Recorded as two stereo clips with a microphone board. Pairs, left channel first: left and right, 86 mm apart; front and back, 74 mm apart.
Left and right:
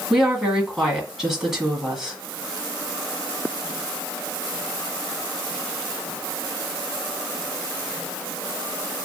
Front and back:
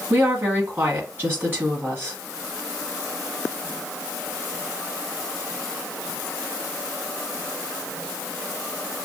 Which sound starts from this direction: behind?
A woman speaking, at 0.1 s.